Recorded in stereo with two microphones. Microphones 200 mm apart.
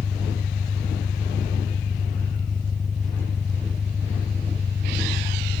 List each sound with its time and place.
0.0 s an engine running: centre (ahead or behind)